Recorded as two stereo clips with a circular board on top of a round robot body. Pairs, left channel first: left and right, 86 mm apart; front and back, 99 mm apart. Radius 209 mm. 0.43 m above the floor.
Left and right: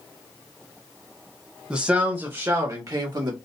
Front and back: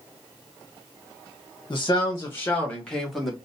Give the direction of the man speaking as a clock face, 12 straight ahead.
1 o'clock.